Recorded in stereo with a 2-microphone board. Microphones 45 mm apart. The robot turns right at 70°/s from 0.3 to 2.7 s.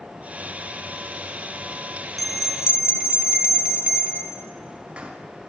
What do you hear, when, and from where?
2.2 s a bell: 175° left, 0.7 m; by 5.1 s 145° right, 0.7 m